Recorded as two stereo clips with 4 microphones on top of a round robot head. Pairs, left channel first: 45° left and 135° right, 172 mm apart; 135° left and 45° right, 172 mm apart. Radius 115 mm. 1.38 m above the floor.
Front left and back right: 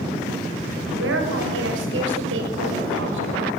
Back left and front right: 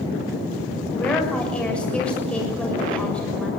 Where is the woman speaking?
140° right, 7 m.